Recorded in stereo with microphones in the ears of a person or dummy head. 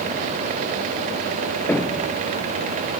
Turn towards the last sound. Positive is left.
turn(degrees=10)  # may be behind; listen again after turning